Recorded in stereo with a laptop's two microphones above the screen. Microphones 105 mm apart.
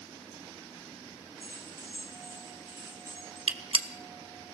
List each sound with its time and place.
1.4 s keys jangling: 30° right (ahead or behind), 8 m
3.5 s a gunshot: 60° right (ahead or behind), 0.9 m